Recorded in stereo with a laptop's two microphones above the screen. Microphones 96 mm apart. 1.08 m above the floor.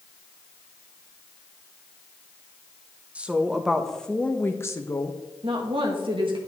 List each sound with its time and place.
3.1 s a woman speaking: 15° right (ahead or behind), 1.2 m; by 5.2 s 45° left (ahead or behind), 1.0 m
5.4 s a woman speaking: 65° right (ahead or behind), 1.4 m